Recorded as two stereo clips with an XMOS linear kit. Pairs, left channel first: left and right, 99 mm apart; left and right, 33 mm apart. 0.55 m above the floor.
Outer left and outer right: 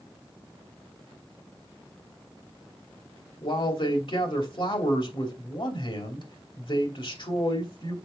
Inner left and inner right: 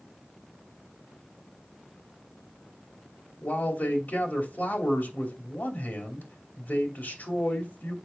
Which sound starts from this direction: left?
A man speaking, at 3.4 s.